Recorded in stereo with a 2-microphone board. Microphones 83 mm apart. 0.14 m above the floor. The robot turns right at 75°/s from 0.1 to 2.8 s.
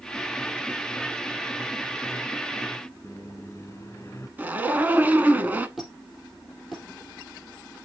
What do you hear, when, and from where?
3.0 s a microwave: 35° left (ahead or behind), 1.0 m
4.4 s a zipper: 20° right (ahead or behind), 0.9 m
5.8 s a squeak: centre (ahead or behind), 3.5 m